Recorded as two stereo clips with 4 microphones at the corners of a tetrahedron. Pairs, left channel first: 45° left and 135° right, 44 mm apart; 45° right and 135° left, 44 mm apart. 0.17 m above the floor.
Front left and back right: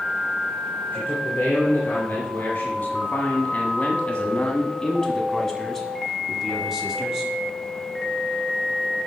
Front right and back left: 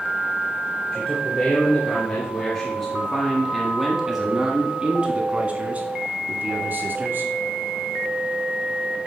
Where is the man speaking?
10° left, 2.5 m; by 7.3 s 155° left, 2 m.